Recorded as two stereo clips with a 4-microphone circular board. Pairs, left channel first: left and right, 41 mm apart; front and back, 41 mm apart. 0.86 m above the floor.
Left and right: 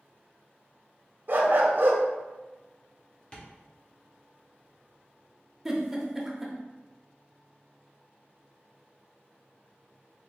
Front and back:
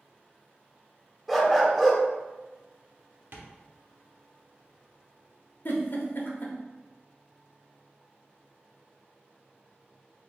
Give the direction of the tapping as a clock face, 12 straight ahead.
7 o'clock.